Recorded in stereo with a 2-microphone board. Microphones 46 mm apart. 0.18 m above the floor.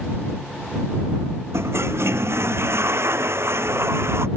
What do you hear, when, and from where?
1.5 s a toilet flushing: 65° right (ahead or behind)